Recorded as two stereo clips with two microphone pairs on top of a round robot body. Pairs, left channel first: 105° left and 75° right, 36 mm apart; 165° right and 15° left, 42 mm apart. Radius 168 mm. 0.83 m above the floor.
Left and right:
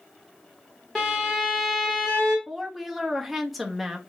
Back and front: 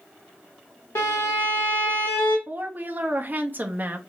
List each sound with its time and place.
0.9 s a violin: 175° right, 0.8 m
2.5 s a woman speaking: 15° left, 0.9 m